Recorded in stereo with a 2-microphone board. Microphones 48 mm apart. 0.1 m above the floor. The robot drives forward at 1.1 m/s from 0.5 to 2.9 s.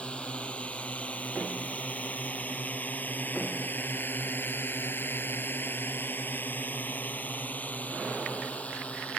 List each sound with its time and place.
0.0 s a drone: 25° left (ahead or behind)